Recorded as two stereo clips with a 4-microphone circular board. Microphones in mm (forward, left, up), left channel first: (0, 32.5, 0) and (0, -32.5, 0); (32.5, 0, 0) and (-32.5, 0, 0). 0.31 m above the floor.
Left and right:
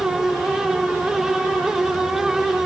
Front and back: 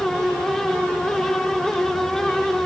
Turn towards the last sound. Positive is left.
No sound to turn to.